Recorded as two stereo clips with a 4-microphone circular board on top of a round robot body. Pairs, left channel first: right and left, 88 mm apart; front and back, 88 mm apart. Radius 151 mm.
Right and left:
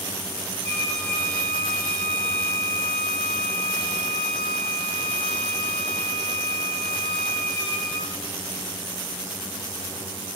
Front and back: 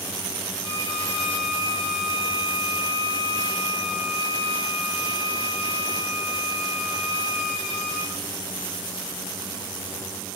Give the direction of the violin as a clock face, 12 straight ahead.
10 o'clock.